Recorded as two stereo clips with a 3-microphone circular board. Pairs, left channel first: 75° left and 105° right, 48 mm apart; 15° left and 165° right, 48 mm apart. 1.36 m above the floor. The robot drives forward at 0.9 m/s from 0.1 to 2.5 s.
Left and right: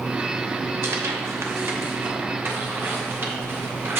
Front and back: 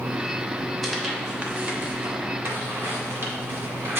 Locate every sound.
0.8 s tearing paper: 75° right, 1.0 m; by 4.0 s 140° right, 1.6 m